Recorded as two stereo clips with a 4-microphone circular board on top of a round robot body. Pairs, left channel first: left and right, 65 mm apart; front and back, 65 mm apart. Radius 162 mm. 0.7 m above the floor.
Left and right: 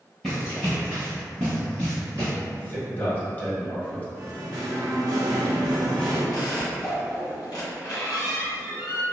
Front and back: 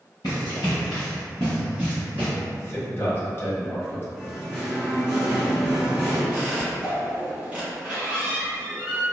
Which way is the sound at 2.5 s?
40° left.